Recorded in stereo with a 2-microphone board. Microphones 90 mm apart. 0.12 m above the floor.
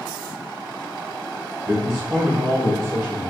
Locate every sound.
1.7 s a man speaking: 30° right (ahead or behind), 1.9 m